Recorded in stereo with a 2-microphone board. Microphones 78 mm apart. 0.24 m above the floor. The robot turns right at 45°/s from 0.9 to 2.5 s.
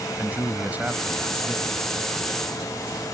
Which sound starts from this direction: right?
A man speaking, at 0.2 s.